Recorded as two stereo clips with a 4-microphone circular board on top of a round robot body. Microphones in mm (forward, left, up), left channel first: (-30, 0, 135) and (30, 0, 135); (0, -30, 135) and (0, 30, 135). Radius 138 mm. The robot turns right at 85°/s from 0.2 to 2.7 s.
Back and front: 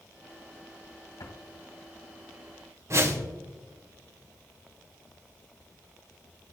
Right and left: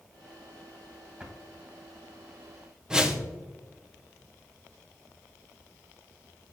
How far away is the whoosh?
About 1.4 m.